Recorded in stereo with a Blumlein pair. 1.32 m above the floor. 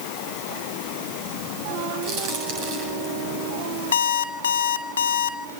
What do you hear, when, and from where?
2.0 s a crack: 45° right, 8.5 m
3.9 s an alarm clock: 65° left, 1.9 m